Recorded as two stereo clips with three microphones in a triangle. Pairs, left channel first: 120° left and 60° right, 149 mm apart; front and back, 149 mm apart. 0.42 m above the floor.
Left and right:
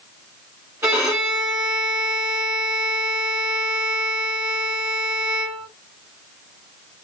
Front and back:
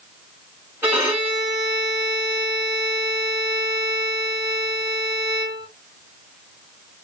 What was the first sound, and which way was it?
A violin, 115° right.